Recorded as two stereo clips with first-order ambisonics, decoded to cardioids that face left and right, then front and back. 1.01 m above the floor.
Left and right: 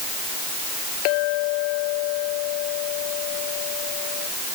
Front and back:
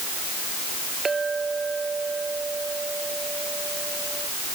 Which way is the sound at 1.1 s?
105° left.